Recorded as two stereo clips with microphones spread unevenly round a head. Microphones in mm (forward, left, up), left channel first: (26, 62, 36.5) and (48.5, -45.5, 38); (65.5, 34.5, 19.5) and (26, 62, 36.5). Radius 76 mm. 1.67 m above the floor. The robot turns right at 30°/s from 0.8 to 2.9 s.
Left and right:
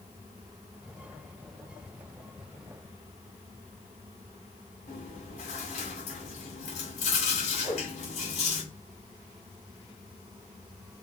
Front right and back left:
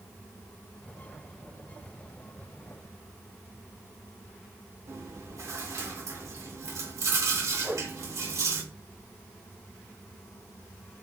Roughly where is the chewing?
Behind left.